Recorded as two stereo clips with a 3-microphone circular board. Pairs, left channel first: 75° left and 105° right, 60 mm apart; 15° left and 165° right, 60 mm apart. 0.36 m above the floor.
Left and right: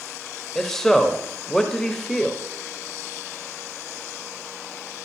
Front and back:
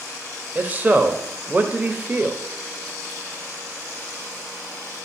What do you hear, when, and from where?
0.6 s a man speaking: 150° left, 1.0 m